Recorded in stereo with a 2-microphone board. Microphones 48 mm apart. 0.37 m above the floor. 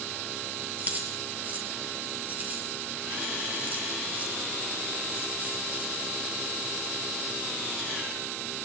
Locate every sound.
0.8 s keys jangling: 35° right (ahead or behind), 6.5 m